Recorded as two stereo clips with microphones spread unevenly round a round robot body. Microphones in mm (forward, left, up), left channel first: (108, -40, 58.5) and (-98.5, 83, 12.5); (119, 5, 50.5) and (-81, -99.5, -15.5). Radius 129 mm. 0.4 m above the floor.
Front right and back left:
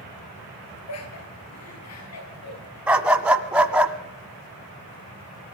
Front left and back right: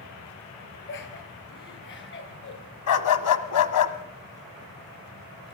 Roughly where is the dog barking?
Ahead left.